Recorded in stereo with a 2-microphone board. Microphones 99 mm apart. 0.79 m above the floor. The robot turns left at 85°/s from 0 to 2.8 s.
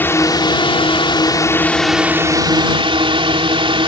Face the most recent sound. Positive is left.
turn(degrees=-80)